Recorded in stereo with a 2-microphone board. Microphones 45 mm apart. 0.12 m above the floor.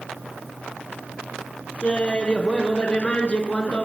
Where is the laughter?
30° left (ahead or behind), 1.6 m.